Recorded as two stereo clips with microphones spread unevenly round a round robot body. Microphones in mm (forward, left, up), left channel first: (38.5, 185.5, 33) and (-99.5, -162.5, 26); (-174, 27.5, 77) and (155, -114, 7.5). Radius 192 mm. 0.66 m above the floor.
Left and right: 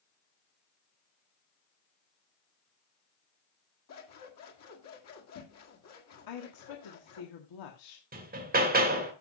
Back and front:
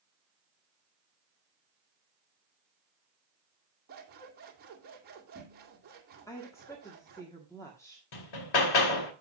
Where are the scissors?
30° left, 1.9 m.